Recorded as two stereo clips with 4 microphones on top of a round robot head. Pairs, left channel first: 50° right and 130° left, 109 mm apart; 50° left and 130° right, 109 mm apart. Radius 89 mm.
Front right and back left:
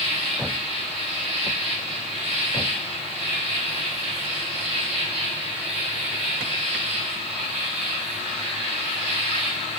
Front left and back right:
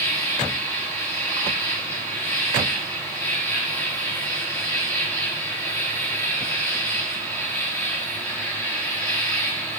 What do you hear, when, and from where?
0.0 s an insect: 125° left, 6 m